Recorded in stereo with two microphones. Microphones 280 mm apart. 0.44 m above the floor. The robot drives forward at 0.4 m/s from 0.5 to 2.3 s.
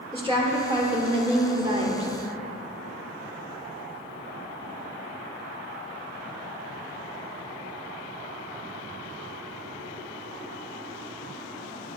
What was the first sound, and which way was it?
A woman speaking, 15° right (ahead or behind).